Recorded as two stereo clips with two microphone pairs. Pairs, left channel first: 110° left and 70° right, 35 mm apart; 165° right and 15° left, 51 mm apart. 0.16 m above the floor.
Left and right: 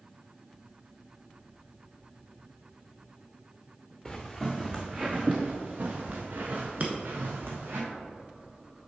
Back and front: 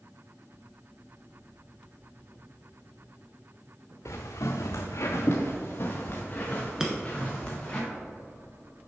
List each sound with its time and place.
4.0 s footsteps: 165° right, 0.9 m; by 7.8 s 95° right, 2 m
6.8 s breaking glass: 55° right, 1.0 m